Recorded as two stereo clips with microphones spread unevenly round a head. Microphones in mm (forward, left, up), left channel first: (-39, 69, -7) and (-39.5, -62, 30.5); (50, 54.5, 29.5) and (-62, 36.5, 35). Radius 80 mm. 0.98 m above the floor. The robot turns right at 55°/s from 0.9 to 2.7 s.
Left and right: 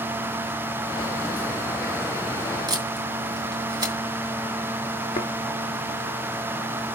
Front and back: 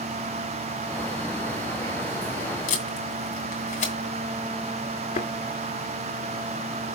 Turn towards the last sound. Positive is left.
turn(degrees=15)